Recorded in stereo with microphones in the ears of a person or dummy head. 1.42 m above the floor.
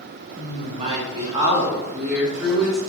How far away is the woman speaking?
About 1.0 m.